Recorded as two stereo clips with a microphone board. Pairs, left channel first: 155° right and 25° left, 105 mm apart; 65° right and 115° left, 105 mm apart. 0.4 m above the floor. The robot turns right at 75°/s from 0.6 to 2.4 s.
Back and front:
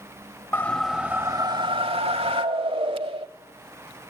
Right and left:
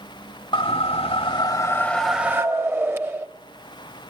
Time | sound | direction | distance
0.5 | a whoosh | 90° right | 0.8 m